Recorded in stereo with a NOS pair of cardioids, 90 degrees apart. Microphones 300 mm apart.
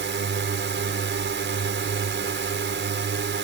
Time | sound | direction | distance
0.0 | a drone | 40° right | ?